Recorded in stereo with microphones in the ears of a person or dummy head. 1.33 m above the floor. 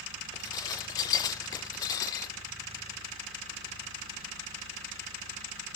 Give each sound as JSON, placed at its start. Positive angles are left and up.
{"t": 0.3, "sound": "dishes clattering", "side_deg": 20, "distance_m": 0.7}